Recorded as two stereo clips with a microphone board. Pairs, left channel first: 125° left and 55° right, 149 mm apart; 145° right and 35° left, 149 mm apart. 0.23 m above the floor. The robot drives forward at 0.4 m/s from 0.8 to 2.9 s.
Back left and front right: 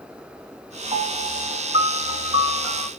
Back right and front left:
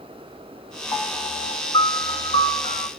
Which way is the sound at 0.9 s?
90° right.